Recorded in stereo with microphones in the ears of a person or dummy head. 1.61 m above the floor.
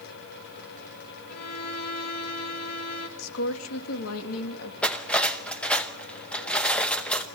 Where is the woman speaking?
85° left, 3 m.